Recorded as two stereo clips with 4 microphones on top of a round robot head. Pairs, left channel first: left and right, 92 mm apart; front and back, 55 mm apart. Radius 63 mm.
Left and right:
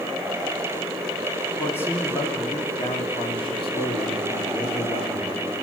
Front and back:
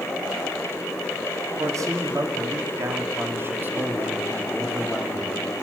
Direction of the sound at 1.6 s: 160° left.